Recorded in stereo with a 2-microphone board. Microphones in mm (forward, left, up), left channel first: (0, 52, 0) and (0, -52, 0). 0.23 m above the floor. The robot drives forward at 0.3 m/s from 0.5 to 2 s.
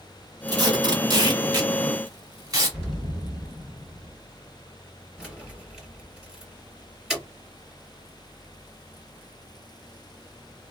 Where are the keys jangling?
5° right (ahead or behind), 2.5 m.